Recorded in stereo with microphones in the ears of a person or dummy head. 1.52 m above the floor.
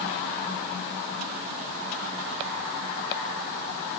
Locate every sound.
Only background noise.